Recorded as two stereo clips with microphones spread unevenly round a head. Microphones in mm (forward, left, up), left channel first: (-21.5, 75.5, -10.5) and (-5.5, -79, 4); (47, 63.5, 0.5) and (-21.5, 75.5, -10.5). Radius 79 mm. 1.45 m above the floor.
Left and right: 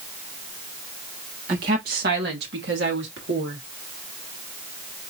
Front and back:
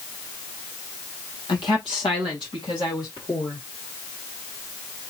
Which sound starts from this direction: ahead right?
A woman speaking, at 1.5 s.